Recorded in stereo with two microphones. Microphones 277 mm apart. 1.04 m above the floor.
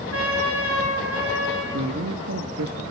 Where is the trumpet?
55° right (ahead or behind), 8 m.